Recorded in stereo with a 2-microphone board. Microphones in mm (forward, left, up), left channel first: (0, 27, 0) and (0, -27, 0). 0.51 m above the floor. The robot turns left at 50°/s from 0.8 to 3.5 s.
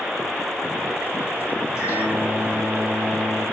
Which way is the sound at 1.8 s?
65° left.